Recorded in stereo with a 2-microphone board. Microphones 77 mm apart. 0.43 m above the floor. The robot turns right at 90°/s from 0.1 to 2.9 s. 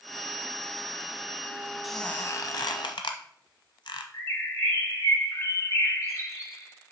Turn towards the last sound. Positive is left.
turn(degrees=45)  # may be behind; listen again after turning